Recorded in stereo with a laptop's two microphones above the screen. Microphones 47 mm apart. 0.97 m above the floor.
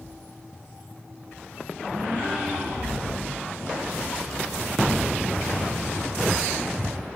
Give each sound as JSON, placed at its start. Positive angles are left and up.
{"t": 1.9, "sound": "a gasp", "side_deg": -30, "distance_m": 7.5}